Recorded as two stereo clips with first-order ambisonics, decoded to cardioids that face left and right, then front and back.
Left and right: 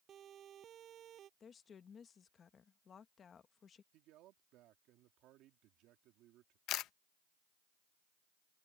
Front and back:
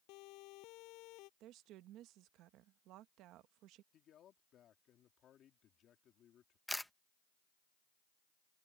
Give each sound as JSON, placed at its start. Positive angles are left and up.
{"t": 0.1, "sound": "a siren", "azimuth_deg": -30}
{"t": 1.4, "sound": "a woman speaking", "azimuth_deg": 150}
{"t": 3.9, "sound": "a man speaking", "azimuth_deg": -55}
{"t": 6.7, "sound": "a camera shutter", "azimuth_deg": 85}